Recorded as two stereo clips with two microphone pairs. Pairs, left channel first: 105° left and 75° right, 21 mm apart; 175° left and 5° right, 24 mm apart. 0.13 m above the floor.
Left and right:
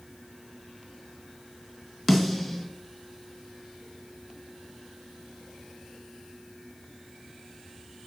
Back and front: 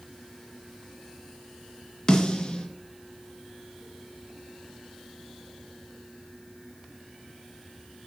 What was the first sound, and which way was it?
A snare drum, 160° right.